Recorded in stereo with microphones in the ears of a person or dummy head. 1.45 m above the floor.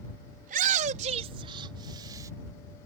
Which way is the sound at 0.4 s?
50° right (ahead or behind).